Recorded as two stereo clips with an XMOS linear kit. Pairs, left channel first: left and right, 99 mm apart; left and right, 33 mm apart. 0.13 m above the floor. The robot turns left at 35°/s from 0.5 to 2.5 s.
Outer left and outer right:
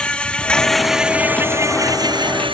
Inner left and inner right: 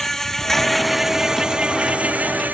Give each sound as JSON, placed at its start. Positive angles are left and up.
{"t": 0.0, "sound": "an insect", "azimuth_deg": 10}